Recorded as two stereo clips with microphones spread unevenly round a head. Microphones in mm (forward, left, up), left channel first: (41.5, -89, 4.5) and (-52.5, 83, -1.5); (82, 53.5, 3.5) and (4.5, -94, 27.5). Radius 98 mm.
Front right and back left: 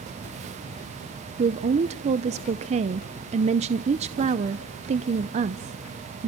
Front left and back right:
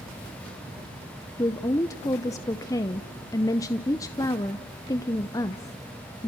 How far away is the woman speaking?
About 0.6 m.